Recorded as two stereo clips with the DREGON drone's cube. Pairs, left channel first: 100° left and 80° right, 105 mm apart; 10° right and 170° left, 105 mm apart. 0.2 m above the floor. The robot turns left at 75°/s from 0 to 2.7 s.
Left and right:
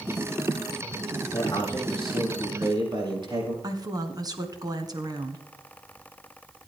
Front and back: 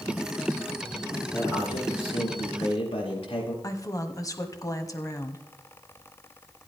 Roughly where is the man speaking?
Ahead left.